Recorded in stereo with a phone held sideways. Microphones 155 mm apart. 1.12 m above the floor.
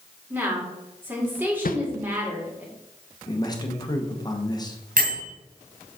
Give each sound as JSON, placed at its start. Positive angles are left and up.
{"t": 0.3, "sound": "a woman speaking", "side_deg": -10, "distance_m": 2.5}
{"t": 1.6, "sound": "a whoosh", "side_deg": 65, "distance_m": 0.6}
{"t": 3.3, "sound": "a man speaking", "side_deg": 25, "distance_m": 1.3}
{"t": 5.0, "sound": "a bell", "side_deg": -65, "distance_m": 1.9}